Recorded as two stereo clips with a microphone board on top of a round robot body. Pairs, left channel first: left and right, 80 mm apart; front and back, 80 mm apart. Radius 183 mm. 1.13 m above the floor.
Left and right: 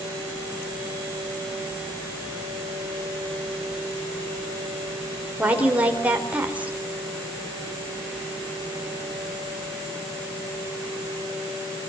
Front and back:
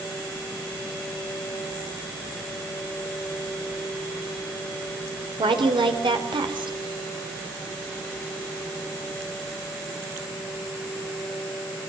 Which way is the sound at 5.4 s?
165° right.